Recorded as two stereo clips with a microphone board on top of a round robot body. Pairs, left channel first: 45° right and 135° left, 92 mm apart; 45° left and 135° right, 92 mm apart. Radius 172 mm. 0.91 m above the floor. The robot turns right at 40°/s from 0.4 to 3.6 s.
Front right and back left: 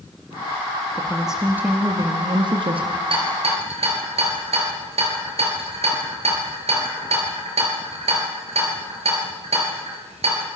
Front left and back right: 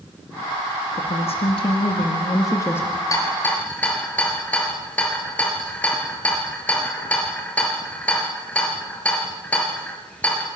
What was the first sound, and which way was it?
A woman speaking, 40° left.